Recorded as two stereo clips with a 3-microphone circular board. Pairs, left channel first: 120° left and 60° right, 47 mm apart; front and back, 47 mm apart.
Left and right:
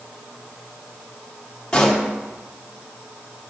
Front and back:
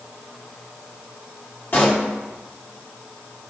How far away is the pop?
About 2 m.